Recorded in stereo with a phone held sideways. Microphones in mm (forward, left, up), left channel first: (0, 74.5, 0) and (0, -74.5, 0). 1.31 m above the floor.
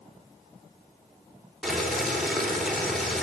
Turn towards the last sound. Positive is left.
turn(degrees=0)  # may be behind; listen again after turning